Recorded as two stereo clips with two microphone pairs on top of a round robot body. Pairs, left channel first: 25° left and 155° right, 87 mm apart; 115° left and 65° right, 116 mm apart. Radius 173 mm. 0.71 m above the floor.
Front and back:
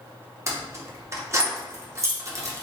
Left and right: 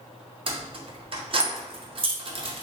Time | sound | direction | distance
0.5 | keys jangling | 100° right | 0.8 m